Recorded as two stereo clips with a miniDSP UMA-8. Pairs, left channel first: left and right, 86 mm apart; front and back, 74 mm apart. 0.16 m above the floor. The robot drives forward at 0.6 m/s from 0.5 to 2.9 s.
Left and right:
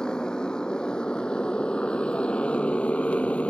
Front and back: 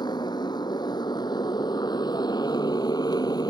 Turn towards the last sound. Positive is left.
turn(degrees=15)